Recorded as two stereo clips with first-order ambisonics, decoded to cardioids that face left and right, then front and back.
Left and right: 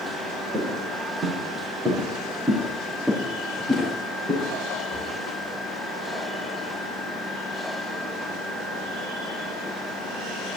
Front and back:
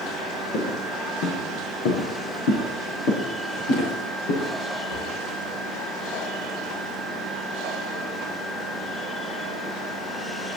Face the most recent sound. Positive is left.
turn(degrees=10)